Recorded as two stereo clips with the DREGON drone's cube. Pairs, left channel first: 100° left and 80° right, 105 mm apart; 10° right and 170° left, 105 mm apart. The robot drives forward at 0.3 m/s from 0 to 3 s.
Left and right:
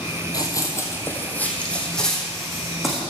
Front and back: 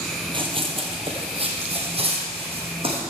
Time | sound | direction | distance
0.3 | running footsteps | 150° left | 1.3 m